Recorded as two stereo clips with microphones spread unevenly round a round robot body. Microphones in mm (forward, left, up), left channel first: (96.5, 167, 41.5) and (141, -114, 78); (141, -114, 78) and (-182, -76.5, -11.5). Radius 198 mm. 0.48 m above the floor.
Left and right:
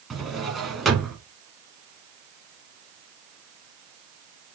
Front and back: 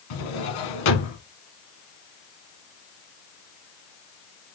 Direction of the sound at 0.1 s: 10° left.